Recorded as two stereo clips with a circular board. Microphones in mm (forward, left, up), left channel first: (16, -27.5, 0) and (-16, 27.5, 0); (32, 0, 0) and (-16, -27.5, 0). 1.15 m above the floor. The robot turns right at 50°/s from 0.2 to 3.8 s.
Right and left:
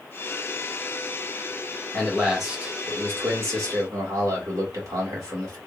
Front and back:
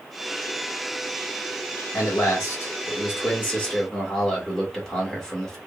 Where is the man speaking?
15° left, 1.7 m; by 5.6 s 110° left, 1.7 m.